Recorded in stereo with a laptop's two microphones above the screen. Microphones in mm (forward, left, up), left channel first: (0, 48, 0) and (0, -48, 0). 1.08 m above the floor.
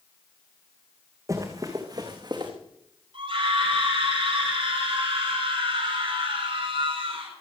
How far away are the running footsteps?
About 3.5 m.